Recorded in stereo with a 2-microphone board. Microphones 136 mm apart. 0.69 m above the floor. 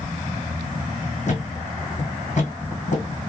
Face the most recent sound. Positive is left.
turn(degrees=55)  # may be behind; listen again after turning